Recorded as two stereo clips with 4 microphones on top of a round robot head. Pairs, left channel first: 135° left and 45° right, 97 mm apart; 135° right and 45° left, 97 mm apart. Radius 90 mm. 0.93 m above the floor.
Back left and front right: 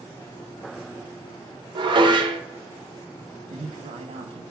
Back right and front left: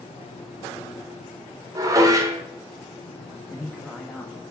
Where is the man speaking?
50° right, 1.0 m.